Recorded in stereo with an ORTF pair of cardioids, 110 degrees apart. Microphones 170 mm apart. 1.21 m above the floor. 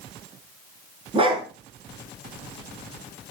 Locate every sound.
1.1 s a dog barking: 30° right, 6 m